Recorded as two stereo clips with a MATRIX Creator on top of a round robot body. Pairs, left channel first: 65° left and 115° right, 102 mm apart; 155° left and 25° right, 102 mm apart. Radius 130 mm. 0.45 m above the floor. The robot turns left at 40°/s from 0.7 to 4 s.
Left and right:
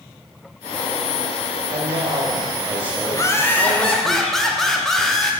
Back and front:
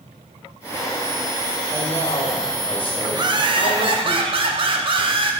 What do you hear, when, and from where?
1.7 s a man speaking: 135° right, 2.5 m; by 4.1 s 130° left, 2.5 m
3.1 s laughter: 15° left, 1.9 m; by 5.3 s 20° right, 1.9 m